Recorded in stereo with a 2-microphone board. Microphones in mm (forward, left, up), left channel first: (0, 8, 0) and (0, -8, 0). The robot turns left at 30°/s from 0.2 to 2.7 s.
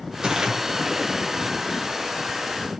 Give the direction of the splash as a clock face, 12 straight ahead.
4 o'clock.